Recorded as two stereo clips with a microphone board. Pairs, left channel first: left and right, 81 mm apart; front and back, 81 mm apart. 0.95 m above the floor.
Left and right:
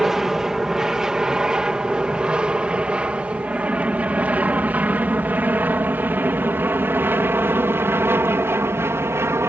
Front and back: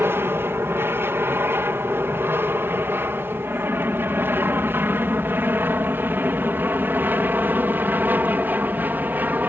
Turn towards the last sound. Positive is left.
turn(degrees=-125)